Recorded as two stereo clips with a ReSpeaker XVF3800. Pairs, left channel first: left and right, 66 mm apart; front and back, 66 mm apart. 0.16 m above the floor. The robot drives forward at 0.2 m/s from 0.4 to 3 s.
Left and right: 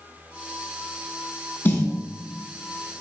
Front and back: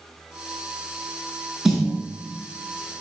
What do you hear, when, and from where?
1.6 s a snare drum: 100° left, 1.0 m